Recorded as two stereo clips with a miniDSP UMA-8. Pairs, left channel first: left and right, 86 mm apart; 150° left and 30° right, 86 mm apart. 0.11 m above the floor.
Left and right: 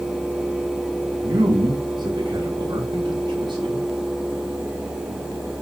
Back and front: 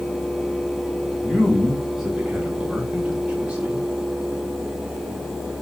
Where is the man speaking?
120° right, 6 m; by 3.9 s 105° right, 8.5 m.